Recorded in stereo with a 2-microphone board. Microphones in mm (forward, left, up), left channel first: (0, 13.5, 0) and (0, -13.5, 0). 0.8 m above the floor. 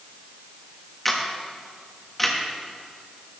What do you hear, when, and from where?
1.1 s a camera shutter: 10° left (ahead or behind), 1.3 m